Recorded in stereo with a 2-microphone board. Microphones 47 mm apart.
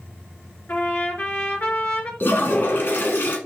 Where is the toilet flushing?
55° left (ahead or behind), 1.3 m.